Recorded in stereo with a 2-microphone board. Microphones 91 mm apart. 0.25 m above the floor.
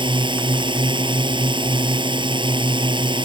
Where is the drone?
55° right (ahead or behind).